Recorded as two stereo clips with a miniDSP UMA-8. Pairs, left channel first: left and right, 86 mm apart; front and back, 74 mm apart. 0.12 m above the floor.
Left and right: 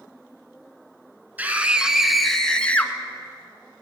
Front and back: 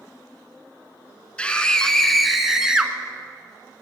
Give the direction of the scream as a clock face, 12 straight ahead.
2 o'clock.